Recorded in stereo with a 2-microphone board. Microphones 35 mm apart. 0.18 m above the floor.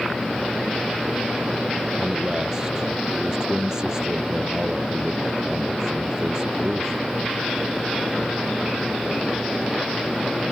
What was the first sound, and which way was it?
A man speaking, 20° right (ahead or behind).